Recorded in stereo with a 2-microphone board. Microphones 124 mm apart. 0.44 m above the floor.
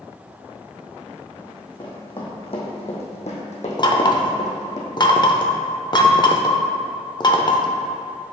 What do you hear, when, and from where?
1.4 s running footsteps: 35° left (ahead or behind), 2 m; by 4.8 s 70° left (ahead or behind), 1.5 m
3.8 s knocking: 35° left (ahead or behind), 0.5 m